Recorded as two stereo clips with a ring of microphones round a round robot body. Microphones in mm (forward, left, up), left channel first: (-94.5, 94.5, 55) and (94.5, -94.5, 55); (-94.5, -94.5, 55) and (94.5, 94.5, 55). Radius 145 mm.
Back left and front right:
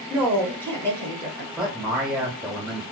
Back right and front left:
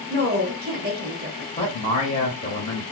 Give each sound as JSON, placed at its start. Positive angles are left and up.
{"t": 0.1, "sound": "a woman speaking", "azimuth_deg": 55, "distance_m": 1.3}
{"t": 1.6, "sound": "a man speaking", "azimuth_deg": -130, "distance_m": 1.4}